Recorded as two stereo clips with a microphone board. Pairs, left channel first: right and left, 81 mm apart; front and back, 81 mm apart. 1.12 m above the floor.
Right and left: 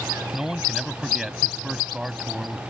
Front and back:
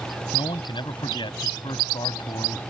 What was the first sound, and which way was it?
A man speaking, 5° left.